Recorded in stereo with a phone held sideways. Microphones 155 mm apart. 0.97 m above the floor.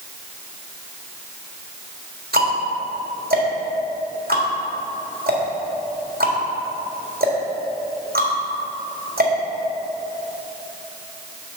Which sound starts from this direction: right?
Ticking, at 2.3 s.